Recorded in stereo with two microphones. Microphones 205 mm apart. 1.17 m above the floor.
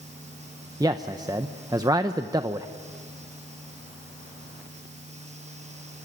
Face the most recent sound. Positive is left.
turn(degrees=-20)  # may be behind; listen again after turning